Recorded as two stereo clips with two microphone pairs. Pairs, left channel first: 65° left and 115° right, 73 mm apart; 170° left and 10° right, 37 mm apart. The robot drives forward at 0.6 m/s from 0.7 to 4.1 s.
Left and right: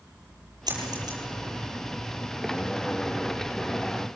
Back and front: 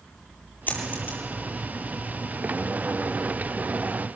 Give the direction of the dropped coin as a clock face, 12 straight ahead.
5 o'clock.